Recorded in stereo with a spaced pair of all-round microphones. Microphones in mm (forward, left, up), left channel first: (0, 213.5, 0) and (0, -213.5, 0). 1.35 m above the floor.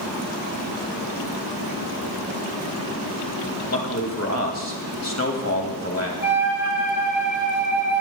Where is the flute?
35° left (ahead or behind), 4 m.